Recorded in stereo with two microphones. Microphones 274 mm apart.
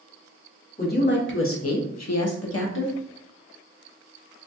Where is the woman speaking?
30° left (ahead or behind), 0.8 m; by 3.0 s 40° left (ahead or behind), 0.7 m.